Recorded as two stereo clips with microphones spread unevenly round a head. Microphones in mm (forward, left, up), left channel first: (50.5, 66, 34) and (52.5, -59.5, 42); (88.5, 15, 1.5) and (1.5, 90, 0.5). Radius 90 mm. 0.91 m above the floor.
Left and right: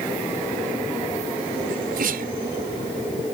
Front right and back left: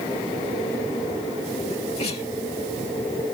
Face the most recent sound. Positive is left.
turn(degrees=-100)